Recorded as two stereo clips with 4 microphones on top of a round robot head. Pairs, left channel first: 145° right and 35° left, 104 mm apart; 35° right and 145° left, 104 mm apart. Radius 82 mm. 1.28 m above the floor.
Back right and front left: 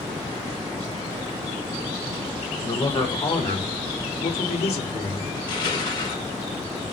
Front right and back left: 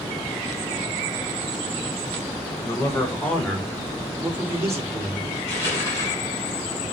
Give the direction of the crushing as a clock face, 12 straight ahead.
3 o'clock.